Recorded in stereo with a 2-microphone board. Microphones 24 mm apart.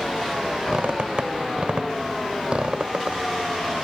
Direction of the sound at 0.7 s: 45° right (ahead or behind).